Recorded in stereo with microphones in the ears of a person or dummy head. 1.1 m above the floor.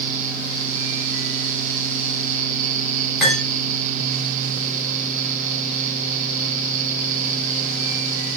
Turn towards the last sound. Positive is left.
turn(degrees=0)  # may be behind; listen again after turning